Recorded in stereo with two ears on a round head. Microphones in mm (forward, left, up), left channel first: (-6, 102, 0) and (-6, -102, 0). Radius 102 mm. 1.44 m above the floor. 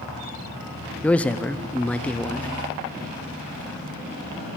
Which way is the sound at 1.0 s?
5° left (ahead or behind).